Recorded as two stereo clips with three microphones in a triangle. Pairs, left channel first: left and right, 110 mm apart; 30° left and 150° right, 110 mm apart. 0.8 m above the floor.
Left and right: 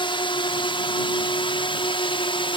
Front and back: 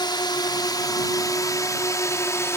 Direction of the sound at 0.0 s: 65° left.